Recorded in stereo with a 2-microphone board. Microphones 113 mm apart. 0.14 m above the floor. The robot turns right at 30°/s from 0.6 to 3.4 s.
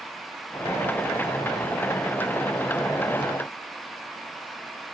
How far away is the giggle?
No giggle in this recording.